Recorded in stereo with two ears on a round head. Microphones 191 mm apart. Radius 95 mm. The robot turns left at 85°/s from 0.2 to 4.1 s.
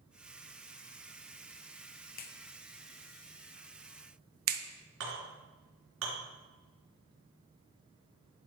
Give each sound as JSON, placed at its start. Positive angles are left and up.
{"t": 2.2, "sound": "a clap", "side_deg": 40, "distance_m": 0.7}
{"t": 5.0, "sound": "a clink", "side_deg": -70, "distance_m": 3.0}